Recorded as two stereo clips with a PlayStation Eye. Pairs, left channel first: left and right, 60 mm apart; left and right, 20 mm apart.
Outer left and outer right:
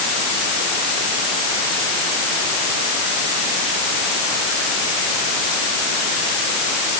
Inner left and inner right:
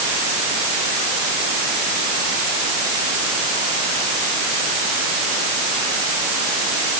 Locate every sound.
Only background noise.